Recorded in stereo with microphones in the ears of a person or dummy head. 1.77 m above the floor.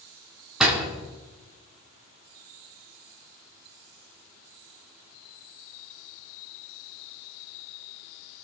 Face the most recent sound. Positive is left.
turn(degrees=-5)  # may be behind; listen again after turning